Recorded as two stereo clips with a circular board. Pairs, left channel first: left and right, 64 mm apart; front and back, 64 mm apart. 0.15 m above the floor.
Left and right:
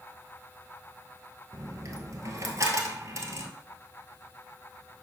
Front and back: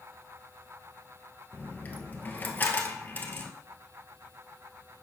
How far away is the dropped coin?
About 1.4 m.